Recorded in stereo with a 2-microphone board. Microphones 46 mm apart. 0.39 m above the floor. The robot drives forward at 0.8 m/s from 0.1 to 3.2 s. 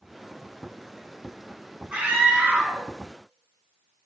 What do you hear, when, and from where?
1.9 s a scream: 20° right (ahead or behind), 3.5 m; by 2.9 s 15° right (ahead or behind), 4.5 m